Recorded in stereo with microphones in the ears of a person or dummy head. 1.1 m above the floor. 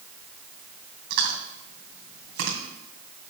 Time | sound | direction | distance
1.1 | chewing | 65° right (ahead or behind) | 2.5 m